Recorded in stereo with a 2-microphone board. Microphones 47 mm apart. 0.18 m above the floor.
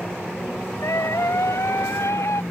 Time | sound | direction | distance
0.8 | a scream | 80° left | ?